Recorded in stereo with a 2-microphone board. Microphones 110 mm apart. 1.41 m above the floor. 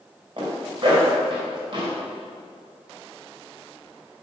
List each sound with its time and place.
0.4 s a zipper: 50° right (ahead or behind), 2.5 m